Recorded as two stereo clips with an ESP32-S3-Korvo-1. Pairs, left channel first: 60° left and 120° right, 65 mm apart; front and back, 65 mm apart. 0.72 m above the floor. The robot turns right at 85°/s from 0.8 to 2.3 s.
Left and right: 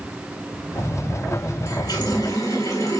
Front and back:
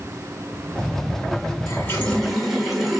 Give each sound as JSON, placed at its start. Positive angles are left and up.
{"t": 1.7, "sound": "a running tap", "azimuth_deg": 40, "distance_m": 1.5}